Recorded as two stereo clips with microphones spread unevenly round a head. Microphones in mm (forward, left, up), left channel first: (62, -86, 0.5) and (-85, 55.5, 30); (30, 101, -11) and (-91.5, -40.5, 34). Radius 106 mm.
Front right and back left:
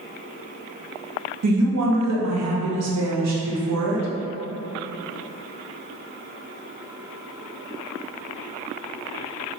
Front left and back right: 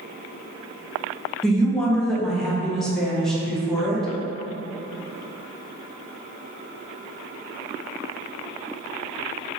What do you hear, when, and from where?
1.4 s a woman speaking: 135° left, 0.9 m